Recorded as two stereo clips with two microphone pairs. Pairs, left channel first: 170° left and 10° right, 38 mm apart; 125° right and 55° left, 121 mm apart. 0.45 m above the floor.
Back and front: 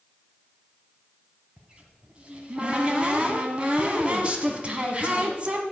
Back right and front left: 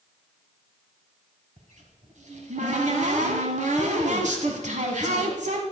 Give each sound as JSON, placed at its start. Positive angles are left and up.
{"t": 1.6, "sound": "a cupboard door", "azimuth_deg": 50, "distance_m": 1.8}